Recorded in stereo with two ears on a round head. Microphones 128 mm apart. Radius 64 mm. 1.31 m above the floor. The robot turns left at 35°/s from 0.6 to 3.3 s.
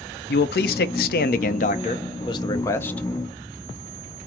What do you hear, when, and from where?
0.3 s a man speaking: 95° left, 0.6 m; by 3.0 s 10° left, 0.6 m